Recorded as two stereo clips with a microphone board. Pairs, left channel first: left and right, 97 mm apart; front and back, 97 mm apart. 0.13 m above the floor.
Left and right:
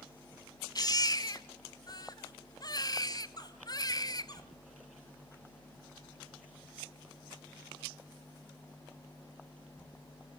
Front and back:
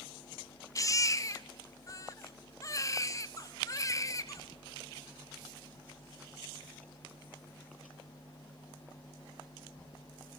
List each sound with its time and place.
0.8 s a baby crying: 50° left, 1.1 m